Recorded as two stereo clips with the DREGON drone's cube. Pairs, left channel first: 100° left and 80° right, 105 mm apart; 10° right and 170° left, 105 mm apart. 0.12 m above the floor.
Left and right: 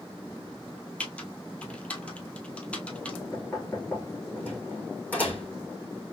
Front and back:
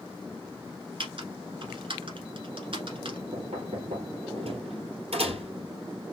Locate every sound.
1.0 s typing on a keyboard: 175° left, 1.0 m
3.3 s knocking: 175° left, 2.5 m